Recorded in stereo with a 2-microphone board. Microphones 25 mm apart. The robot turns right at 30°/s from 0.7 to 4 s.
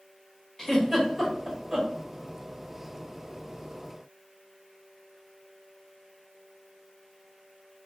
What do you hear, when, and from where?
0.6 s a giggle: 15° left (ahead or behind), 1.0 m; by 1.9 s 15° right (ahead or behind), 1.0 m